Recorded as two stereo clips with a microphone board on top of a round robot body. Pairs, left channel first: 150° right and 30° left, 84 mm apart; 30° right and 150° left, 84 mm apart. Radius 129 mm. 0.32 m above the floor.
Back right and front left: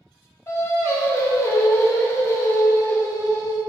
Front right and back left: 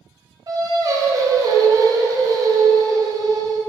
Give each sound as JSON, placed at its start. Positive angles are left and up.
{"t": 0.5, "sound": "singing", "azimuth_deg": 170, "distance_m": 0.9}